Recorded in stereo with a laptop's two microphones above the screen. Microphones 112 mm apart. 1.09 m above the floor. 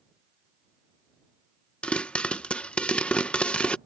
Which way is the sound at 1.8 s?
10° left (ahead or behind).